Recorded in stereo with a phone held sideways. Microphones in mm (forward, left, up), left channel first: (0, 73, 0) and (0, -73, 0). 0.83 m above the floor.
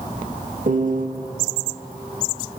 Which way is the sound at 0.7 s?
65° right (ahead or behind).